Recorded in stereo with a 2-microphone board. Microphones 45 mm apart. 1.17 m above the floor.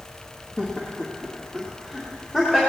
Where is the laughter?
25° left (ahead or behind), 1.8 m; by 2.6 s 15° left (ahead or behind), 3 m.